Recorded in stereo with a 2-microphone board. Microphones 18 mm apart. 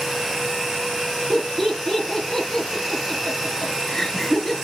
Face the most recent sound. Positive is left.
turn(degrees=20)  # may be behind; listen again after turning